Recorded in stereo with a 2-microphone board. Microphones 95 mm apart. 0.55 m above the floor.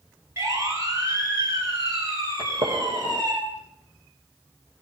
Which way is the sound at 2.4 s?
85° right.